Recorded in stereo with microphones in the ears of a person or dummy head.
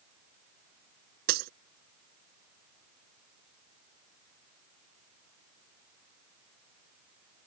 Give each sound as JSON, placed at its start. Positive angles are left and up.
{"t": 1.3, "sound": "breaking glass", "side_deg": -60}